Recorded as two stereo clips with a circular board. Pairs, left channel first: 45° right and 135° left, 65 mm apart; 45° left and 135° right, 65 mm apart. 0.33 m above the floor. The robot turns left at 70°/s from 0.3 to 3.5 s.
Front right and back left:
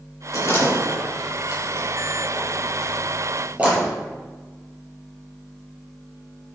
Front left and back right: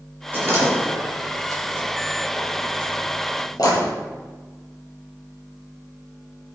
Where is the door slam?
75° right, 5 m; by 3.9 s 65° left, 5 m.